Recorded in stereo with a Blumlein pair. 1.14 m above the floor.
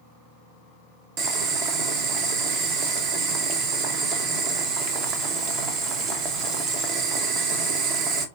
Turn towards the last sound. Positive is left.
turn(degrees=-35)